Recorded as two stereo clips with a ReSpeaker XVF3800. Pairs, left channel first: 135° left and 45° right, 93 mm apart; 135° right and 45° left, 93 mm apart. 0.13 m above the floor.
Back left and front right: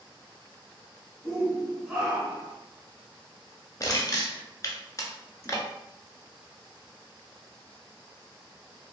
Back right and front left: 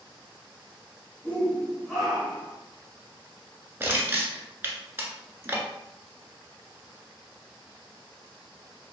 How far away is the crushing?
About 0.6 m.